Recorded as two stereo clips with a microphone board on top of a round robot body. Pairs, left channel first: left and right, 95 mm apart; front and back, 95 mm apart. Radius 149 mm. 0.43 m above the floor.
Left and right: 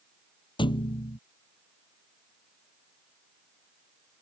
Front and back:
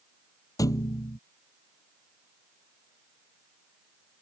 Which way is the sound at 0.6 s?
55° left.